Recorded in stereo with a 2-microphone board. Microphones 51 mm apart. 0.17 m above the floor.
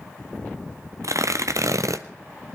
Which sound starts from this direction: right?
Tearing paper, at 1.0 s.